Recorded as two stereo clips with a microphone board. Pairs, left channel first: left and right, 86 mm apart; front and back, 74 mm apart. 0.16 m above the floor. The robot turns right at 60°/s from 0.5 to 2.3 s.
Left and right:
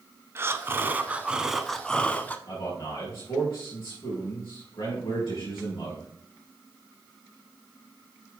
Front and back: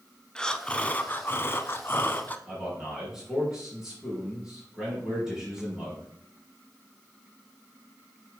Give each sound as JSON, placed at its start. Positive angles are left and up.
{"t": 0.3, "sound": "breathing", "azimuth_deg": -70, "distance_m": 0.5}
{"t": 2.5, "sound": "a man speaking", "azimuth_deg": 95, "distance_m": 4.0}